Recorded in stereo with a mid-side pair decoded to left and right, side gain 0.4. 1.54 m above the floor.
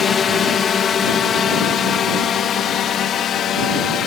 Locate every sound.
0.0 s a drone: 50° left; by 4.1 s 70° left